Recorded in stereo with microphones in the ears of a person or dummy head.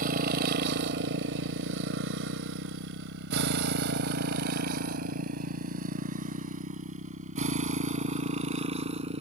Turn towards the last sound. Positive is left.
turn(degrees=-35)  # may be behind; listen again after turning